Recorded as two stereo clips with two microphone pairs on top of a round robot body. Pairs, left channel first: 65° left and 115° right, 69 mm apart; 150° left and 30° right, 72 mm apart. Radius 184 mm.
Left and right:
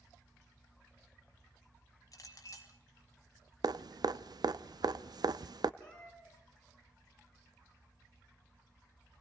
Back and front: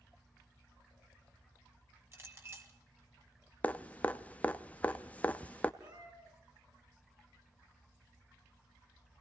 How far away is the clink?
About 3.5 m.